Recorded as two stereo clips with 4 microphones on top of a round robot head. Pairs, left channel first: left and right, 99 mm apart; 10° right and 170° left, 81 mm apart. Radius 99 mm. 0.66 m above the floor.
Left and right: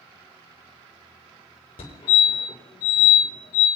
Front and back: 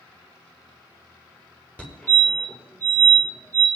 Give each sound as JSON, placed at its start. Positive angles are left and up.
{"t": 1.8, "sound": "a fire alarm", "azimuth_deg": 60, "distance_m": 5.5}